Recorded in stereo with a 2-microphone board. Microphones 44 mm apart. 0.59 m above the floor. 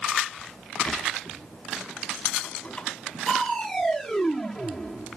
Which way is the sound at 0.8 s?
25° left (ahead or behind).